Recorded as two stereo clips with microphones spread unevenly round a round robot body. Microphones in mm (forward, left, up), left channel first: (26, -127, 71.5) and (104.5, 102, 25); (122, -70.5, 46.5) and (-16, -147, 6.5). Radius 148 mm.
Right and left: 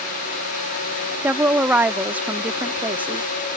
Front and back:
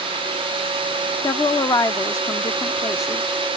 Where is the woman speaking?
105° left.